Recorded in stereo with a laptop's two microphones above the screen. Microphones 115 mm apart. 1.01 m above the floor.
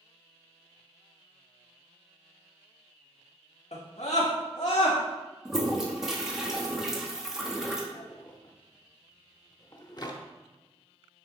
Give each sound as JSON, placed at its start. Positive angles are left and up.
{"t": 3.7, "sound": "a scream", "side_deg": 70, "distance_m": 1.3}
{"t": 5.5, "sound": "a toilet flushing", "side_deg": -5, "distance_m": 1.5}
{"t": 7.9, "sound": "a drawer", "side_deg": 40, "distance_m": 0.8}